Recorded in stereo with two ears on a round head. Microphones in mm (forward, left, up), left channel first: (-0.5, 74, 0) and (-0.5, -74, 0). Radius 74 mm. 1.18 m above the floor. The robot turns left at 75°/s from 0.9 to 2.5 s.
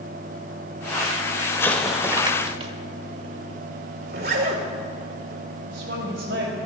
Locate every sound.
1.6 s an explosion: 20° left, 1.5 m; by 2.7 s 45° right, 1.5 m
4.1 s a zipper: 70° right (ahead or behind), 2.5 m
5.7 s a woman speaking: 85° right, 5 m